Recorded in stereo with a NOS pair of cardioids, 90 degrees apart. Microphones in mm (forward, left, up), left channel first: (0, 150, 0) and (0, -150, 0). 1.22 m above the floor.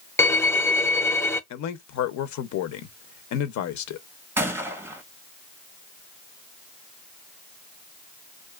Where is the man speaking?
70° left, 0.7 m.